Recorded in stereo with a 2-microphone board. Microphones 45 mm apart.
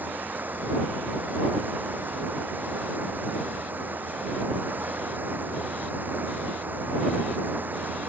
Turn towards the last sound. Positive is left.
turn(degrees=-45)  # may be behind; listen again after turning